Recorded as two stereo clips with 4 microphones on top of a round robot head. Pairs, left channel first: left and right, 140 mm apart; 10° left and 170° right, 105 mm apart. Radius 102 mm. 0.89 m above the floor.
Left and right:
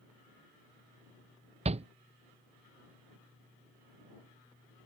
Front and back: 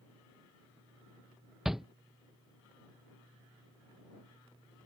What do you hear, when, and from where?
1.6 s a shout: 85° right